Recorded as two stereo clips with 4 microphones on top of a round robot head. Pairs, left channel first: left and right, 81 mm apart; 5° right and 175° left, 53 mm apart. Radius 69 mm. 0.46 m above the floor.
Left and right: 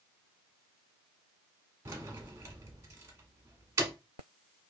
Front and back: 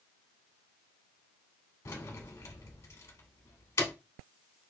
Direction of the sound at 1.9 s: 35° right.